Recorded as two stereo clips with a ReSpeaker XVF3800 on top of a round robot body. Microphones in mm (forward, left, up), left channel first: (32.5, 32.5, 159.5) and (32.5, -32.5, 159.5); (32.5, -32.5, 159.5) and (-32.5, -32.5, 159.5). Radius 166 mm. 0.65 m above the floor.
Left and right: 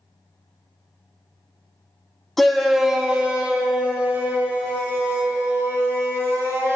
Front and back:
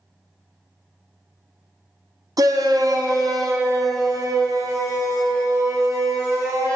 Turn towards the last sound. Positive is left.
turn(degrees=-145)